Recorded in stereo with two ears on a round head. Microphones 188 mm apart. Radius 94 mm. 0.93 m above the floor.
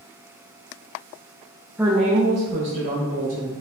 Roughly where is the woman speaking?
Centre.